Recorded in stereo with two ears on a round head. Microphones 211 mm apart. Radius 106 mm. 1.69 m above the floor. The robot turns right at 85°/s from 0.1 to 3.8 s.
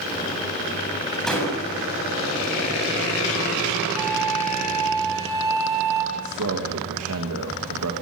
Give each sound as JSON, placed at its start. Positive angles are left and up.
{"t": 1.3, "sound": "a door slam", "azimuth_deg": 0, "distance_m": 7.5}
{"t": 4.0, "sound": "a flute", "side_deg": -15, "distance_m": 6.0}
{"t": 6.1, "sound": "a man speaking", "side_deg": -70, "distance_m": 3.0}